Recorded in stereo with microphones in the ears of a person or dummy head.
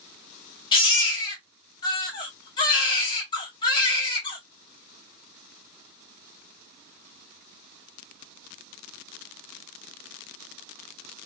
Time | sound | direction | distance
0.7 | a baby crying | 30° left (ahead or behind) | 1.9 m